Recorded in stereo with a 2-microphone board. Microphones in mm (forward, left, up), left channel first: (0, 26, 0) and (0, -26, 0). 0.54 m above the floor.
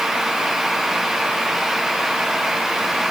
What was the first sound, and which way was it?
Only background noise.